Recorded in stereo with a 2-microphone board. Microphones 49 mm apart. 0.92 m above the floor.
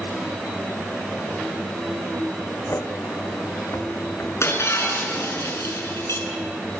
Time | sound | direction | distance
2.7 | footsteps | 65° left (ahead or behind) | 2 m
4.4 | breaking glass | 60° left (ahead or behind) | 6.5 m